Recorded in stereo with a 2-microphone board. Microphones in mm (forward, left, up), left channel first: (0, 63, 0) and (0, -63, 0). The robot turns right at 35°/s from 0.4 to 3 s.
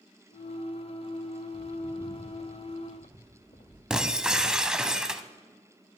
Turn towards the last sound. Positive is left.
turn(degrees=-5)  # may be behind; listen again after turning